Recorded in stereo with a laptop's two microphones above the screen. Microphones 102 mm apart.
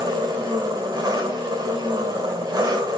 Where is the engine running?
40° right (ahead or behind), 1.6 m.